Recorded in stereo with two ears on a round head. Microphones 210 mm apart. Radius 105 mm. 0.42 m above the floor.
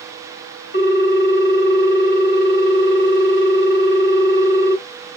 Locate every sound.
0.7 s a ringtone: 40° left (ahead or behind), 1.0 m